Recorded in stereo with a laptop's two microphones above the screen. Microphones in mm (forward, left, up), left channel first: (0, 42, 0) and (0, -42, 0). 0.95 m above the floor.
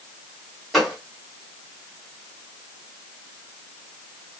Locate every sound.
0.7 s a gunshot: centre (ahead or behind), 2.5 m